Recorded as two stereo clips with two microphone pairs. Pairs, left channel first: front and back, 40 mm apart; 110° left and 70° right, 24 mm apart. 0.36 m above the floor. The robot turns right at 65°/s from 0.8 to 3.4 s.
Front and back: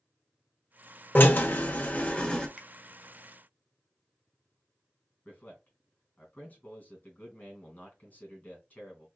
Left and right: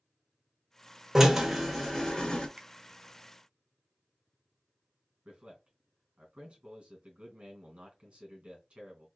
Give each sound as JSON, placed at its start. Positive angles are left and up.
{"t": 1.1, "sound": "a drill", "azimuth_deg": -10, "distance_m": 1.1}
{"t": 2.6, "sound": "a finger snap", "azimuth_deg": -110, "distance_m": 0.9}
{"t": 5.2, "sound": "a man speaking", "azimuth_deg": -50, "distance_m": 2.5}